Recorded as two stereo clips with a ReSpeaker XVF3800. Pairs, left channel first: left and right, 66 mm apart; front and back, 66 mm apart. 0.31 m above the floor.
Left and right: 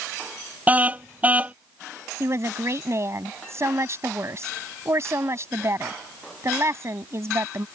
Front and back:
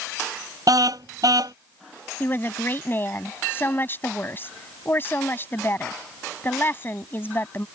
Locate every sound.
0.7 s a car horn: 155° right
2.2 s a woman speaking: 55° right